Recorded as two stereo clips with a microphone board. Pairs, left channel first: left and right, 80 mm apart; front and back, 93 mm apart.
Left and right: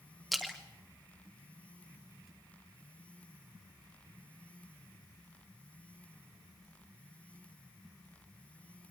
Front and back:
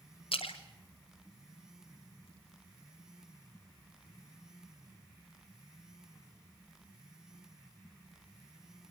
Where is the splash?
Straight ahead, 3 m.